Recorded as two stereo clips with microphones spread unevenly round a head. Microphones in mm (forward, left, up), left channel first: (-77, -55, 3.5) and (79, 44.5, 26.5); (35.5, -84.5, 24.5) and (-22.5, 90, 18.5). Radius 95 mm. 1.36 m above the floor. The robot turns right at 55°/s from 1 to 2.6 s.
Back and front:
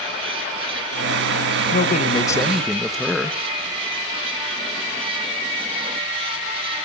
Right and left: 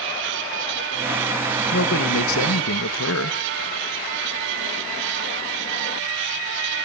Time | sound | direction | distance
1.7 | a man speaking | 105° right | 1.8 m